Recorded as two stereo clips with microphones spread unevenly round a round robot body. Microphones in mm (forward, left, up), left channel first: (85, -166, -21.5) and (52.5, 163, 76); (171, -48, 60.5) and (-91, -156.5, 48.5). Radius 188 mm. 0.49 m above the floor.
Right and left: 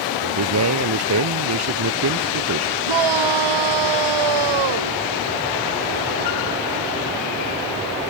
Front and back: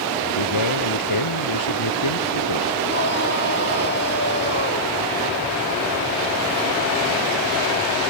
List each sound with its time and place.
0.2 s a man speaking: 55° left; by 2.8 s 50° left
2.9 s a shout: 85° left